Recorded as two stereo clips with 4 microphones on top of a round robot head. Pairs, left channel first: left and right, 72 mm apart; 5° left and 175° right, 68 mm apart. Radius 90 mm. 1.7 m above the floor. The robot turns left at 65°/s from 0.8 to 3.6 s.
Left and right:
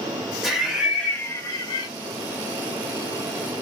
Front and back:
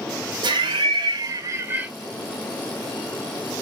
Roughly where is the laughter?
Behind.